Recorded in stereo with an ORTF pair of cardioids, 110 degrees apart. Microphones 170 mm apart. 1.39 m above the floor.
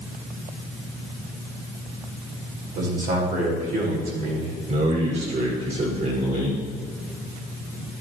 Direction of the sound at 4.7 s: 45° right.